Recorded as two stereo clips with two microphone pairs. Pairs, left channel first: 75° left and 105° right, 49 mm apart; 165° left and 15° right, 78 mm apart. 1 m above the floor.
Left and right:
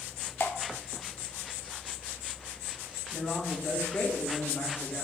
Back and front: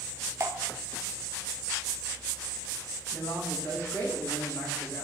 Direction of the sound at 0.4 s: 35° left.